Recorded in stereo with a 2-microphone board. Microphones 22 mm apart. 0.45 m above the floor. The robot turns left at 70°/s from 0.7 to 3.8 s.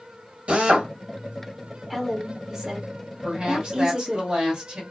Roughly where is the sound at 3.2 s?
Ahead right.